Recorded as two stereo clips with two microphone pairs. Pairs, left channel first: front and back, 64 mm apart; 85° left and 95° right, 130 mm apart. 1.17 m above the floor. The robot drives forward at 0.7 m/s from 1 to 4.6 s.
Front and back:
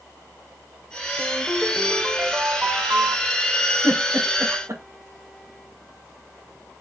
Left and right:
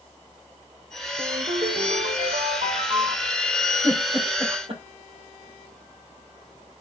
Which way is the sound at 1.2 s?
85° right.